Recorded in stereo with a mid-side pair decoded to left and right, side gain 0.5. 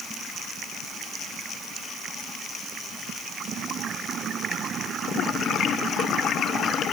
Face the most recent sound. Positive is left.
No sound to turn to.